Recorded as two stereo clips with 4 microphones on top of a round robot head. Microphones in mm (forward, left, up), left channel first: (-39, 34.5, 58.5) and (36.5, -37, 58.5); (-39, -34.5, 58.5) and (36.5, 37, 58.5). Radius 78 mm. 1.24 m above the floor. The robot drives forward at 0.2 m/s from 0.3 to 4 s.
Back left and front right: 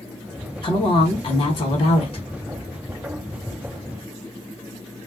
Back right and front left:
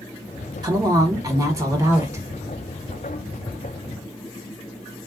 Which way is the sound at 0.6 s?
95° left.